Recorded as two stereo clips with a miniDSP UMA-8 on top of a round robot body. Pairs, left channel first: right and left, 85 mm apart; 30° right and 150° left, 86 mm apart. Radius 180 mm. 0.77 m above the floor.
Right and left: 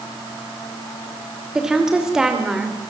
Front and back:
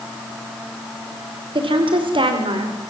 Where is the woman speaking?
175° left, 3 m.